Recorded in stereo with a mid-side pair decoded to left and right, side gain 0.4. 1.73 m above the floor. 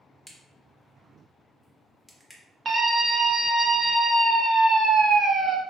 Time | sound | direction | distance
0.3 | a crack | straight ahead | 1.0 m
2.6 | a scream | 50° right | 1.0 m